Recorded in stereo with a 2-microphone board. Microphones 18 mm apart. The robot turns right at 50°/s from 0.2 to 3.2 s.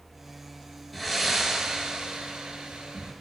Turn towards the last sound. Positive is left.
turn(degrees=-75)